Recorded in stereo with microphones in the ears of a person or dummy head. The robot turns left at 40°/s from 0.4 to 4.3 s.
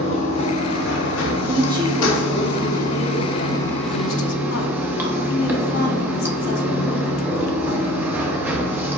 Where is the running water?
145° left, 0.7 m; by 9.0 s 10° right, 0.7 m.